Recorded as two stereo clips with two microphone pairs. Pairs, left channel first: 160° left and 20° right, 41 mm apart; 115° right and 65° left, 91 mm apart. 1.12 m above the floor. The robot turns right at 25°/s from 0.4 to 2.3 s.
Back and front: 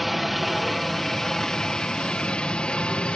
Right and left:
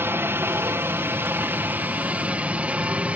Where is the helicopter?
65° left; by 3.2 s 125° left.